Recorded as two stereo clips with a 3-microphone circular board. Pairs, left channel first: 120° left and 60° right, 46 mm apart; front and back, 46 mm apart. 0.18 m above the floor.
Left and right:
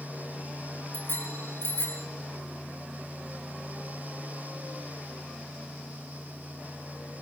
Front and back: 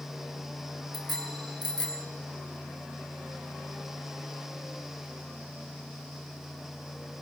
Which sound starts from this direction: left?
A bicycle bell, at 0.9 s.